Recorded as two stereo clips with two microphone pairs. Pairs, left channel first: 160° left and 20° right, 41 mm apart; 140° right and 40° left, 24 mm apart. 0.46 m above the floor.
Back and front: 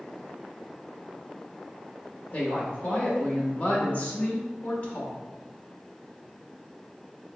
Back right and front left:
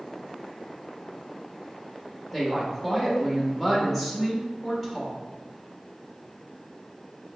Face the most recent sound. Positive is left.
turn(degrees=140)